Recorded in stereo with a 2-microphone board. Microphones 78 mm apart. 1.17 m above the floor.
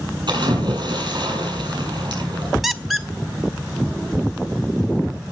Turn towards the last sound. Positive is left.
turn(degrees=0)  # may be behind; listen again after turning